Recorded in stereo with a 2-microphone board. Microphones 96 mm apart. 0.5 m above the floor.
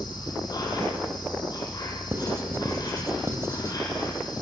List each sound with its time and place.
0.0 s an insect: 45° left (ahead or behind), 4 m
2.1 s writing: 30° right (ahead or behind), 2.0 m